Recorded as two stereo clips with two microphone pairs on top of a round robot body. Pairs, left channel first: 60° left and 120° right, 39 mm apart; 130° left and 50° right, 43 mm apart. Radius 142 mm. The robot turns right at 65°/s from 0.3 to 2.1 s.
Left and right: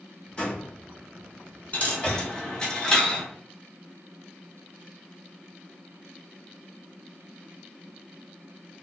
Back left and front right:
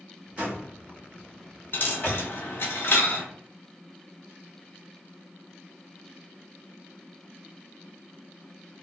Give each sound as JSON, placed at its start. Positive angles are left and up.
{"t": 0.4, "sound": "a door slam", "azimuth_deg": 10, "distance_m": 1.5}
{"t": 1.7, "sound": "a dropped coin", "azimuth_deg": 105, "distance_m": 0.9}